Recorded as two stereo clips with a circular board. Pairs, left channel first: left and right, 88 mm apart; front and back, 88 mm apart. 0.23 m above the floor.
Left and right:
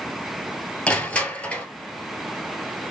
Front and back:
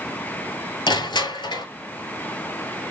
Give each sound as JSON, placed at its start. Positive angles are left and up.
{"t": 0.9, "sound": "crushing", "azimuth_deg": 15, "distance_m": 0.8}